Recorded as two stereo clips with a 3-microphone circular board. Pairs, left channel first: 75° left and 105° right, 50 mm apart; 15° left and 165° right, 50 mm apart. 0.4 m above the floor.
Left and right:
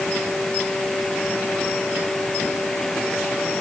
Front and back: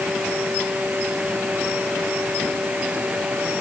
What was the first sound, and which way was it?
Only background noise.